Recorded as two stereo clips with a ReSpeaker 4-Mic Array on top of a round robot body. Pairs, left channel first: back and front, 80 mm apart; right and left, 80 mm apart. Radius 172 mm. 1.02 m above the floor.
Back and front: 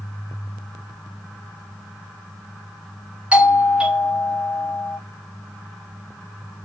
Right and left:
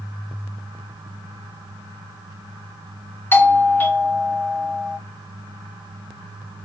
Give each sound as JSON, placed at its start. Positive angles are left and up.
{"t": 3.3, "sound": "a doorbell", "azimuth_deg": -60, "distance_m": 1.1}